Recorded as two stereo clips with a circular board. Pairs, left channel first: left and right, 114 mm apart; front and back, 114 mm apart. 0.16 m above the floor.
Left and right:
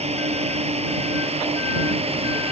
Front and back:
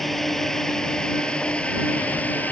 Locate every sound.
0.0 s a drone: 90° right; by 2.5 s 75° right